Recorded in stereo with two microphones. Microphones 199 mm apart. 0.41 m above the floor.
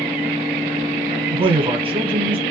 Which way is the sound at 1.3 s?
25° right (ahead or behind).